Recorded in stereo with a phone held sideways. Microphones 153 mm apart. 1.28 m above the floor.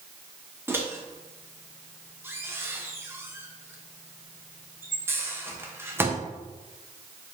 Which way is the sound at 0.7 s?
15° right (ahead or behind).